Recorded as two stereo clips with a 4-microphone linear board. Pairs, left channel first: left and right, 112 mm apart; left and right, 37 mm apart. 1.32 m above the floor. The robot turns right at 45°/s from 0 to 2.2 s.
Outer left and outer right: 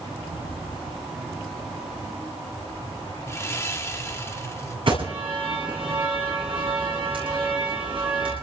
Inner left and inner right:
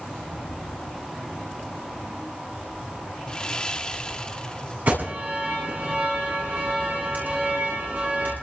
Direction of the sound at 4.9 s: 55° right (ahead or behind).